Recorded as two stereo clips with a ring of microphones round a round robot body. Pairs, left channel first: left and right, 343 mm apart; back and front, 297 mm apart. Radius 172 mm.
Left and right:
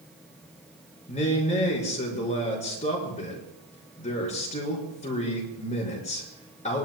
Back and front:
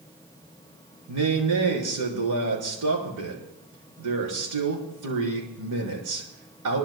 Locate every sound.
1.1 s a man speaking: 20° left, 5.5 m